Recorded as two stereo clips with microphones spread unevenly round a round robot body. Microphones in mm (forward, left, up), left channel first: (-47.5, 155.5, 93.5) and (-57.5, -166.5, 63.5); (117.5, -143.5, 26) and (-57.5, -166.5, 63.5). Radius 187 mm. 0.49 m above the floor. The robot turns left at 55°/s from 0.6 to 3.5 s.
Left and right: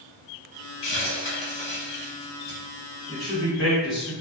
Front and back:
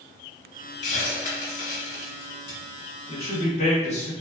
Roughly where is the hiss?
Ahead left.